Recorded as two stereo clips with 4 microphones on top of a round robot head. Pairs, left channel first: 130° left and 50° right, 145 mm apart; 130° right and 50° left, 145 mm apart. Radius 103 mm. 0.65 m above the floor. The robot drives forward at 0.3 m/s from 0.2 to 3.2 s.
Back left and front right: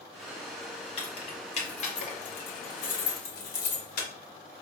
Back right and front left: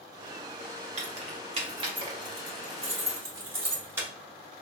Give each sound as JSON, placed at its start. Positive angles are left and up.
{"t": 1.0, "sound": "keys jangling", "azimuth_deg": 85, "distance_m": 1.1}